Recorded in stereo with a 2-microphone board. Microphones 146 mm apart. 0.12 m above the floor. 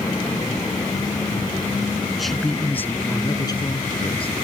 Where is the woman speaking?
5° right (ahead or behind); by 4.4 s 45° left (ahead or behind).